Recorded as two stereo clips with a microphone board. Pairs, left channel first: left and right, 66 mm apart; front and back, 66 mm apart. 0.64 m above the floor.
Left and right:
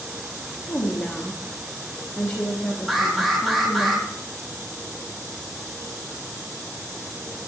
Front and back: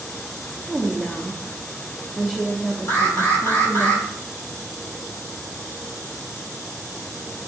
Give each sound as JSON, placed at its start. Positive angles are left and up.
{"t": 0.7, "sound": "a woman speaking", "azimuth_deg": 90, "distance_m": 1.1}
{"t": 2.9, "sound": "an alarm", "azimuth_deg": 0, "distance_m": 2.0}